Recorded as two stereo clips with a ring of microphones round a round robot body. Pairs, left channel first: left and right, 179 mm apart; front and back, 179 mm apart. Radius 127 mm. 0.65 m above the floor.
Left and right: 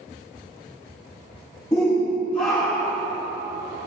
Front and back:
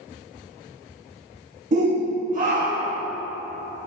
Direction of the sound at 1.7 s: 160° left.